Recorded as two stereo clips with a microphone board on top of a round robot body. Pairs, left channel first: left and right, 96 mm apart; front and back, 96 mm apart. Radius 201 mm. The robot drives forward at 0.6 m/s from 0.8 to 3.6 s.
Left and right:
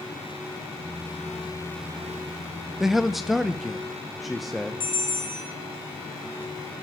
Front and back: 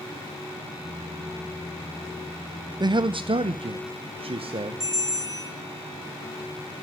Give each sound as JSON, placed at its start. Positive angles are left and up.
{"t": 2.8, "sound": "a man speaking", "azimuth_deg": -175, "distance_m": 0.6}
{"t": 4.8, "sound": "a bell", "azimuth_deg": 125, "distance_m": 2.5}